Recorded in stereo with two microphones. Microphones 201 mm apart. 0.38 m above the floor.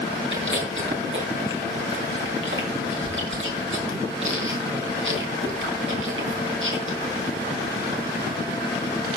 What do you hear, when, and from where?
0.3 s chewing: 75° right (ahead or behind), 4 m